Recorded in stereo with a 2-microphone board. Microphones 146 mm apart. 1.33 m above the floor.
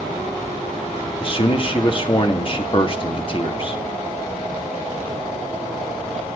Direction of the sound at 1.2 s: 40° left (ahead or behind).